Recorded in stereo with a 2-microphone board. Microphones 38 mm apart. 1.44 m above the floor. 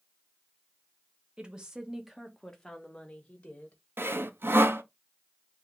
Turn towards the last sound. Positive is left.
turn(degrees=-85)